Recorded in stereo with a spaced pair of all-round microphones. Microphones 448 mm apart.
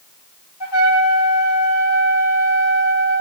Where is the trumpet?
70° left (ahead or behind), 1.1 m.